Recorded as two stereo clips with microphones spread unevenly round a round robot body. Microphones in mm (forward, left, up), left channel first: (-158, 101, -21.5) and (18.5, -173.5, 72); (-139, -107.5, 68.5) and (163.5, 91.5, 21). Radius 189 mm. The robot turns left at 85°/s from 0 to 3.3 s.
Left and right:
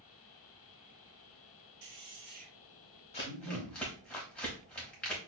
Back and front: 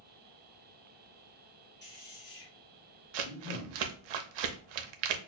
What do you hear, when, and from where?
1.8 s a man speaking: 85° right, 1.5 m; by 3.8 s 150° left, 1.5 m
3.1 s crumpling: 55° left, 0.7 m; by 5.2 s 40° left, 0.7 m